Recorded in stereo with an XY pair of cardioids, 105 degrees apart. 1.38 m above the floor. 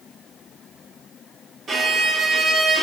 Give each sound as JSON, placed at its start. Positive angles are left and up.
{"t": 1.7, "sound": "a violin", "azimuth_deg": -50, "distance_m": 1.3}